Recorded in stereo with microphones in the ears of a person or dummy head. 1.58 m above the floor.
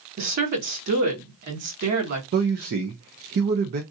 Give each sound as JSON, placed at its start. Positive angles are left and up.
{"t": 0.2, "sound": "a woman speaking", "side_deg": -55, "distance_m": 1.6}
{"t": 2.3, "sound": "a man speaking", "side_deg": -45, "distance_m": 0.5}